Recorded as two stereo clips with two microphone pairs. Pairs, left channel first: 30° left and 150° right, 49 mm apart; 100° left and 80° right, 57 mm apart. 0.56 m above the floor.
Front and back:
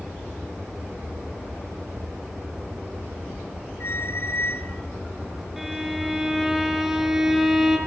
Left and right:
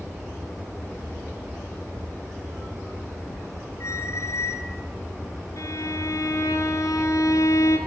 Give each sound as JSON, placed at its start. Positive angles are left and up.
{"t": 3.8, "sound": "a squeak", "azimuth_deg": 65, "distance_m": 1.7}
{"t": 5.6, "sound": "a violin", "azimuth_deg": 125, "distance_m": 6.0}